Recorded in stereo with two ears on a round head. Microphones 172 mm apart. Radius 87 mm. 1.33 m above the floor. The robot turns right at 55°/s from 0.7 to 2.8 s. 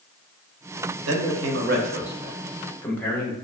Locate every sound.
1.1 s a man speaking: 85° right, 0.8 m; by 3.3 s 10° left, 0.8 m